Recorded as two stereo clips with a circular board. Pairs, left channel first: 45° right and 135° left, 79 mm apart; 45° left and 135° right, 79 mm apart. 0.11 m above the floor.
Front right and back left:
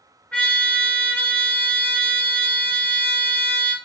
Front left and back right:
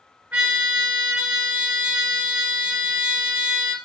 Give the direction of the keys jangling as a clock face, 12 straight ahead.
No keys jangling in this recording.